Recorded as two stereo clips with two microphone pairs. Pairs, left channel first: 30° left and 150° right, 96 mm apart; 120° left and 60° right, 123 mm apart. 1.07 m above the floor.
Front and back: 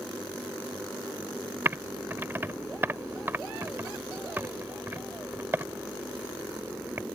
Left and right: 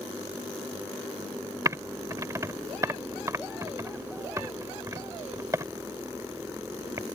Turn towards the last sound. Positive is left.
turn(degrees=-105)